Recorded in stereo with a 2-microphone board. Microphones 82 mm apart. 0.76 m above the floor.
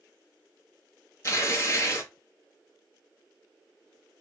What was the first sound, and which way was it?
Tearing paper, 40° left (ahead or behind).